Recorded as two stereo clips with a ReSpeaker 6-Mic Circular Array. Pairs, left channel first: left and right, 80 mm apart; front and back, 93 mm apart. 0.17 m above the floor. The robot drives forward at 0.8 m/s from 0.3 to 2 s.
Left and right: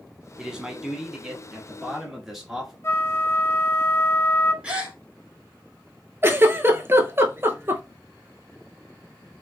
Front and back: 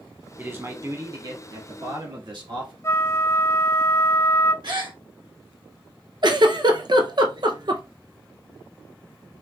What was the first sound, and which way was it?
A man speaking, 155° right.